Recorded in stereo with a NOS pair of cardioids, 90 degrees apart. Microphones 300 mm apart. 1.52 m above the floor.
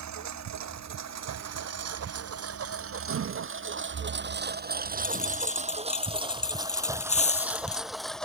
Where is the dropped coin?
20° left.